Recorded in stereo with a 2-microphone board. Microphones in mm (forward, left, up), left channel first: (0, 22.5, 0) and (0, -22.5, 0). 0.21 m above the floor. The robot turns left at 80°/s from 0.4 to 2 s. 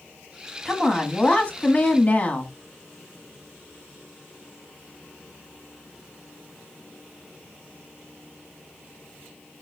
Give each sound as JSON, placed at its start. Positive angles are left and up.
{"t": 0.7, "sound": "a woman speaking", "azimuth_deg": -170, "distance_m": 1.3}